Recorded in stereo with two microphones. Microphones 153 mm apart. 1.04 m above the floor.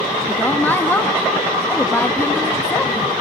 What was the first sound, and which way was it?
A woman speaking, 10° left (ahead or behind).